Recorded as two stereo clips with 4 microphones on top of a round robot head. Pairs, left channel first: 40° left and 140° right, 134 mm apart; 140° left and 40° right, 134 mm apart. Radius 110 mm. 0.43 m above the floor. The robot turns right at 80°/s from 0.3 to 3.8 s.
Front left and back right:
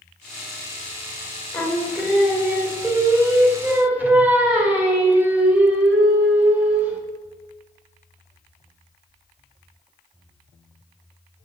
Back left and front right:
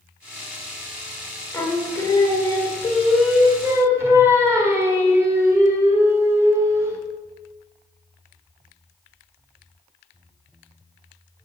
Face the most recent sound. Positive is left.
turn(degrees=-80)